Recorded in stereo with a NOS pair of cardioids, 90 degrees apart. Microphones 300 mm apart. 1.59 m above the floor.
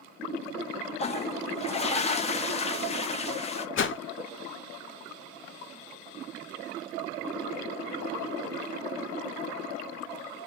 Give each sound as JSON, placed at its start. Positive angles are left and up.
{"t": 1.0, "sound": "a toilet flushing", "azimuth_deg": 20, "distance_m": 0.6}
{"t": 3.8, "sound": "a whoosh", "azimuth_deg": 45, "distance_m": 0.6}